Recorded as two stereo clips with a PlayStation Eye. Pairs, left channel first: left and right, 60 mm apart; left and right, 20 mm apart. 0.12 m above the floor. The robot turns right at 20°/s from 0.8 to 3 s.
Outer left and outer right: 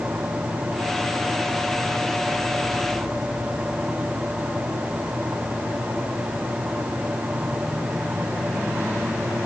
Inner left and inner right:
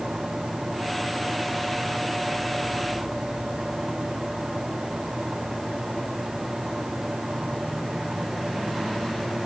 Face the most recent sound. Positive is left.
No sound to turn to.